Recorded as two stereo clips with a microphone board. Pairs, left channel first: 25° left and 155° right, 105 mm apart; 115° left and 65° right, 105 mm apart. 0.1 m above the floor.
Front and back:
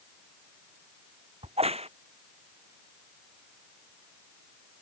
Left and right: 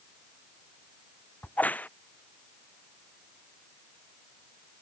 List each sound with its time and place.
1.4 s a crack: 170° right